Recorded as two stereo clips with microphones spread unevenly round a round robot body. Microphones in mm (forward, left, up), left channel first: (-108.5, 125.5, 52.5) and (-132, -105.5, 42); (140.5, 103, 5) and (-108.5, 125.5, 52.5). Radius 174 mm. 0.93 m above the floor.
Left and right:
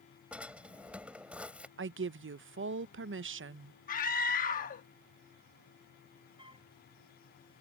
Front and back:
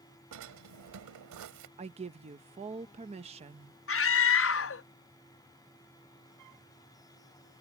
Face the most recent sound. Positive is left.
turn(degrees=-165)